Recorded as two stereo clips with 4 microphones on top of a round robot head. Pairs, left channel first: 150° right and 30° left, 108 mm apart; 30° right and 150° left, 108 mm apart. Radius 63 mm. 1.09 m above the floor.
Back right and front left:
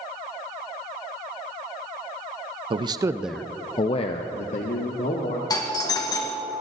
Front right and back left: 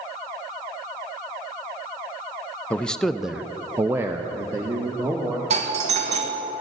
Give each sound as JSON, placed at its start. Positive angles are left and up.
{"t": 2.7, "sound": "a man speaking", "azimuth_deg": 45, "distance_m": 0.7}
{"t": 5.5, "sound": "a doorbell", "azimuth_deg": 155, "distance_m": 1.8}